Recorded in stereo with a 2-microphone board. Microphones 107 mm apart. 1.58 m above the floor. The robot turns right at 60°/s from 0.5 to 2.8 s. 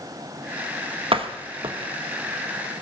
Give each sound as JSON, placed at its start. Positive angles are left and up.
{"t": 1.1, "sound": "a door slam", "side_deg": -55, "distance_m": 1.2}